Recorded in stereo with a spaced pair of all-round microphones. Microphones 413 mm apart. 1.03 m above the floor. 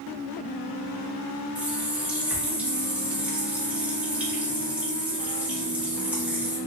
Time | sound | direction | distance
1.6 | a running tap | 5° right (ahead or behind) | 0.8 m